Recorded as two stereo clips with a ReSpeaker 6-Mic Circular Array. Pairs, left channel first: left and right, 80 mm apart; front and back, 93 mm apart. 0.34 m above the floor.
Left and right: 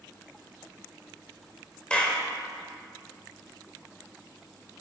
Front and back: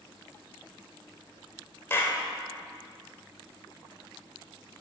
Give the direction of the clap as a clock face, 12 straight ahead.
11 o'clock.